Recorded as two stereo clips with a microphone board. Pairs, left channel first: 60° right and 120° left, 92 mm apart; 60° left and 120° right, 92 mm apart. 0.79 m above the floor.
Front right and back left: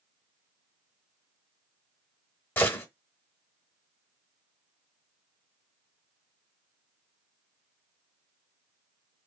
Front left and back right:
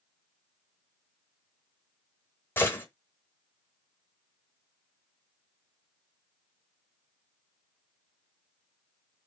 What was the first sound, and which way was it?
A gunshot, straight ahead.